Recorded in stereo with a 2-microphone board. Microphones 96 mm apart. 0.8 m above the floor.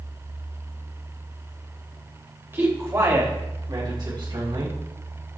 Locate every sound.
2.5 s a man speaking: 25° right (ahead or behind), 3.5 m; by 4.8 s 65° right (ahead or behind), 5 m